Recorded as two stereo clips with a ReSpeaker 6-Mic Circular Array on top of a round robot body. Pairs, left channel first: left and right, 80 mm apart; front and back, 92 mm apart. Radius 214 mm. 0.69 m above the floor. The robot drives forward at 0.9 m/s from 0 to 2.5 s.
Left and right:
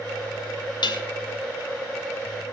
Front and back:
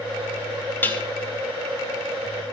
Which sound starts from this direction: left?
Dishes clattering, at 0.8 s.